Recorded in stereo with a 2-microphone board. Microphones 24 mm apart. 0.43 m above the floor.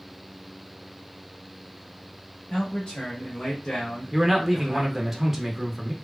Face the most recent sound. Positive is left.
turn(degrees=-10)  # may be behind; listen again after turning